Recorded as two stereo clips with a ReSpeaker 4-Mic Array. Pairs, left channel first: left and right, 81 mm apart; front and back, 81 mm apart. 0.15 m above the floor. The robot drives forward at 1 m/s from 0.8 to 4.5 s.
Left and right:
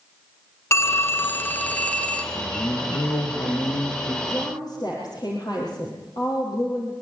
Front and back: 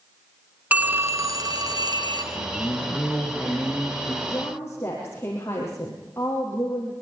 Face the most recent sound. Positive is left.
turn(degrees=65)